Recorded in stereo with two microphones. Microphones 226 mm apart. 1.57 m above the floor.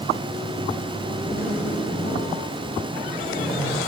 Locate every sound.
1.2 s a zipper: 40° left (ahead or behind), 1.4 m